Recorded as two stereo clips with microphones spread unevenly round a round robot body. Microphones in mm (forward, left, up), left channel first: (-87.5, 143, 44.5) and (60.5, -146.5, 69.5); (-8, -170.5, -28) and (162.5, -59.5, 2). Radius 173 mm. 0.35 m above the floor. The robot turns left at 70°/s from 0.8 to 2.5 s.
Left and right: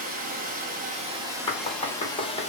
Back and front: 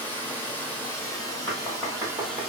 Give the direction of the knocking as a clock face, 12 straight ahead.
7 o'clock.